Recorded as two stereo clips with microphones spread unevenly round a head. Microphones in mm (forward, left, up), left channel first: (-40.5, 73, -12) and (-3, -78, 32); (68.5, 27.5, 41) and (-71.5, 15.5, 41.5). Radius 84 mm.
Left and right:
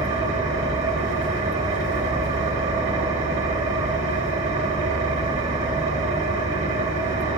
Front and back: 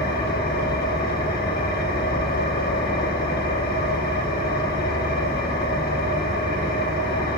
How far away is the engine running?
About 2.5 m.